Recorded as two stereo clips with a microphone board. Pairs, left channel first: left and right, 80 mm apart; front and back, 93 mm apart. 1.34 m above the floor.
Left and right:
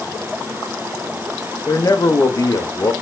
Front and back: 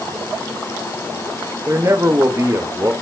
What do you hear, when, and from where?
1.7 s a man speaking: 125° left, 0.8 m